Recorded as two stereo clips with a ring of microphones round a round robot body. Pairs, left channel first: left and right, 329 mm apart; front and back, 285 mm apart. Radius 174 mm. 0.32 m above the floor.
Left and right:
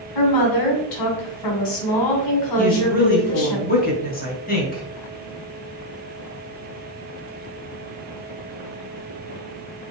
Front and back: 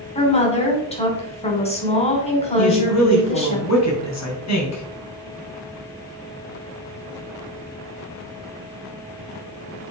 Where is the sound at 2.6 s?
25° left, 3 m.